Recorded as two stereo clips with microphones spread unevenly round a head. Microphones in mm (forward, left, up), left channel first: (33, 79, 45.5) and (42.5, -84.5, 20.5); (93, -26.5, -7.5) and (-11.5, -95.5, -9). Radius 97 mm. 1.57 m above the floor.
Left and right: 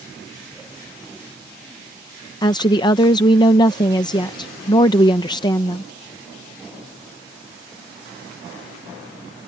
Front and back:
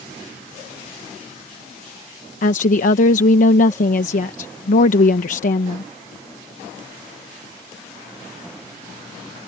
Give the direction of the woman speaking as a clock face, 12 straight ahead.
11 o'clock.